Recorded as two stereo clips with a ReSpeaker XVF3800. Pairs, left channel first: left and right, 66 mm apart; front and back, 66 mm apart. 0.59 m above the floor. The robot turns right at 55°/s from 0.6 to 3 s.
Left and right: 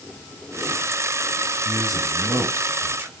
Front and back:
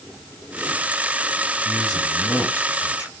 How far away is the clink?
No clink in this recording.